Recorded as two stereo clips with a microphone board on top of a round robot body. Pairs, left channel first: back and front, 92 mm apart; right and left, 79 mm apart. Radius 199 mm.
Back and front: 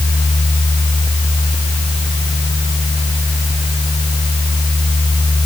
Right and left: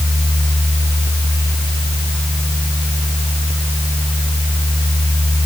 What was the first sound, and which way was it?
Only background noise.